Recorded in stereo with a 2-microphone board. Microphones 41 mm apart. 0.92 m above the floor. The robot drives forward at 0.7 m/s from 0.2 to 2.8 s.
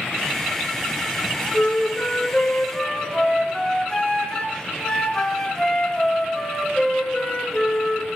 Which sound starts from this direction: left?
A flute, at 1.5 s.